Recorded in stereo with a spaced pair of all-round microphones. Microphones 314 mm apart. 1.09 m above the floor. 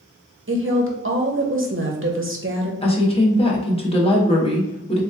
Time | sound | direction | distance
0.5 | a woman speaking | 40° right (ahead or behind) | 0.6 m
2.8 | a woman speaking | 20° left (ahead or behind) | 0.8 m